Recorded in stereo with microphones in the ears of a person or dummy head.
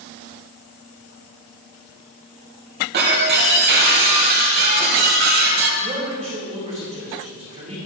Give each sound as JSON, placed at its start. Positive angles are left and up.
{"t": 2.9, "sound": "breaking glass", "side_deg": -55, "distance_m": 3.0}
{"t": 5.8, "sound": "a man speaking", "side_deg": -35, "distance_m": 4.5}